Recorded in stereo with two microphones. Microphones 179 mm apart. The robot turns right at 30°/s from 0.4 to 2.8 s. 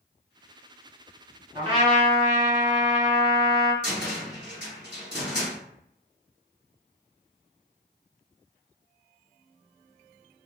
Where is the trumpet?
25° right (ahead or behind), 1.6 m; by 3.7 s 20° right (ahead or behind), 1.6 m.